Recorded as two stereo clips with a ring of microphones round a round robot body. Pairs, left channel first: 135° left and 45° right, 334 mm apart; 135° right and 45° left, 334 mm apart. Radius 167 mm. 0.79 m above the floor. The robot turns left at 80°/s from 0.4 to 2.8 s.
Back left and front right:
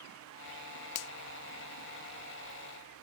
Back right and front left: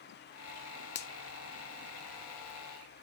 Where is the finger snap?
170° left; by 1.1 s 155° left.